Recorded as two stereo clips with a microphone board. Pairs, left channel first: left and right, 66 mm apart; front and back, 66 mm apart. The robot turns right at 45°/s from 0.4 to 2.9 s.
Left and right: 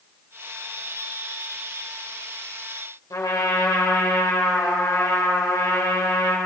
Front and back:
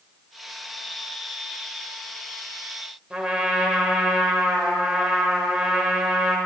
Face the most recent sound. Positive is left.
turn(degrees=105)